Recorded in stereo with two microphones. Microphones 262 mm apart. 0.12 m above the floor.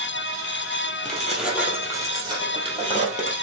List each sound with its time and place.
1.1 s keys jangling: 5° left (ahead or behind), 2 m; by 3.3 s 30° right (ahead or behind), 3 m